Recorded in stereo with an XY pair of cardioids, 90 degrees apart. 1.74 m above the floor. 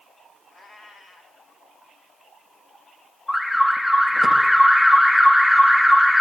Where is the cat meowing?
60° left, 4.5 m.